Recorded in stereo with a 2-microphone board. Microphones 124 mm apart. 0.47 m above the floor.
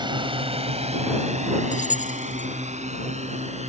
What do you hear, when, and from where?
0.0 s a drone: 40° right (ahead or behind); by 3.7 s 65° right (ahead or behind)
1.7 s keys jangling: 85° left